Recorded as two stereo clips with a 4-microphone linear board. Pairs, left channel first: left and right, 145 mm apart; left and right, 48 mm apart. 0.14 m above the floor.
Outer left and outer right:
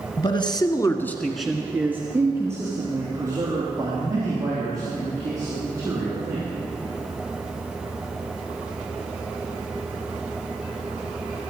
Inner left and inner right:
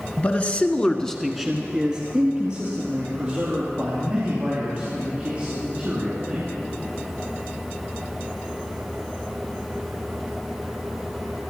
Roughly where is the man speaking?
Left.